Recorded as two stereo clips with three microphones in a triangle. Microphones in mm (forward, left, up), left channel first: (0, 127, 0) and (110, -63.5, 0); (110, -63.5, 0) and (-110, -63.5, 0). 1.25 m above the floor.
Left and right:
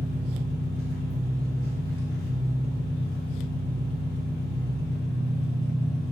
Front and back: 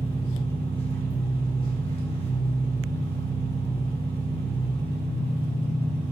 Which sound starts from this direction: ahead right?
An engine running, at 0.0 s.